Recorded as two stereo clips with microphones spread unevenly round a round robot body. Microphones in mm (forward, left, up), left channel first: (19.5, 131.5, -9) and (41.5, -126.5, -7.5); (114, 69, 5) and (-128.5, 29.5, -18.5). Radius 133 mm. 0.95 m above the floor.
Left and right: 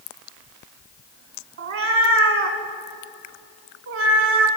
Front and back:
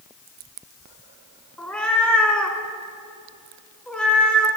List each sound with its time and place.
1.6 s a cat meowing: 70° right, 1.2 m